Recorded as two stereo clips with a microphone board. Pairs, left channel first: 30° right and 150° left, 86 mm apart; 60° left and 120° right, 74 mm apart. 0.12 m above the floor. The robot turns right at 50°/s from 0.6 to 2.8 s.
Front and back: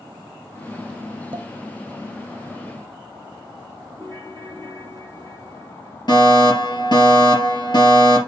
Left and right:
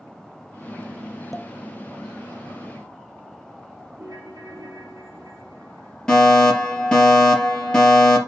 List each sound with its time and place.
1.3 s a pop: 150° left, 0.7 m; by 1.5 s 160° left, 0.7 m
4.0 s a ringtone: 85° right, 2.5 m
6.1 s a fire alarm: 20° right, 3.5 m